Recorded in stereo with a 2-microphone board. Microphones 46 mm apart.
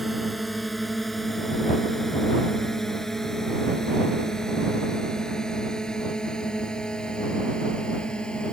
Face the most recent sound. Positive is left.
turn(degrees=20)  # may be behind; listen again after turning